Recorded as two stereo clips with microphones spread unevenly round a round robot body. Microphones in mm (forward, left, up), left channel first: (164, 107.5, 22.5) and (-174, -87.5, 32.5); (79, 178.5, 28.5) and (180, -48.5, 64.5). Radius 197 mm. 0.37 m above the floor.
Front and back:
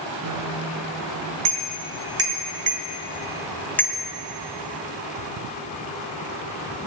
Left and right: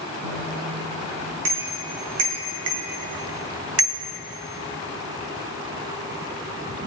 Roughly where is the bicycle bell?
Right.